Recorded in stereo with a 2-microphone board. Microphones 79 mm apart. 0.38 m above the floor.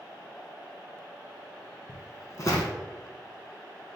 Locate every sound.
1.9 s footsteps: 50° left (ahead or behind), 1.3 m